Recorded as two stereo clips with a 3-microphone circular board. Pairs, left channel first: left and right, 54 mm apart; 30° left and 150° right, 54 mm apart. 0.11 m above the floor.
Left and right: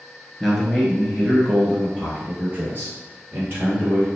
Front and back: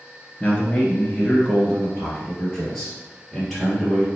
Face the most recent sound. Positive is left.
turn(degrees=-60)